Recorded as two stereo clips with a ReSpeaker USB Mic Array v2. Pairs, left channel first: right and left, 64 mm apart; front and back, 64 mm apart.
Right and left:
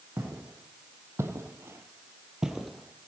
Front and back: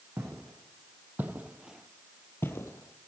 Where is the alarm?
I don't hear an alarm.